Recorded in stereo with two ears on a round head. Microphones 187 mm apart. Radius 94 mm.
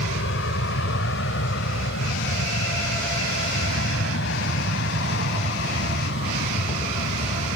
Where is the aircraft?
60° left (ahead or behind); by 7.6 s 55° left (ahead or behind).